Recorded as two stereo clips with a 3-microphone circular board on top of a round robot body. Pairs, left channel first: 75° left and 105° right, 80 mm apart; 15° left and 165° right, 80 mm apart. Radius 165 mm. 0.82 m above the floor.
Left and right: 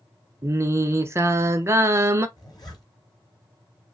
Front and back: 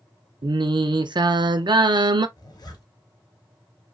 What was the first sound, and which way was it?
Singing, 160° right.